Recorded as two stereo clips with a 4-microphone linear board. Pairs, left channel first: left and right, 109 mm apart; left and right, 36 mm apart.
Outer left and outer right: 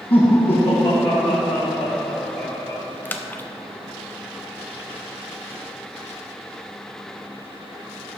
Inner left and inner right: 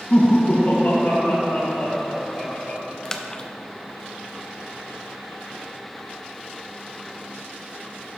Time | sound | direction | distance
0.1 | laughter | 55° left (ahead or behind) | 1.3 m
3.0 | a splash | 15° left (ahead or behind) | 0.5 m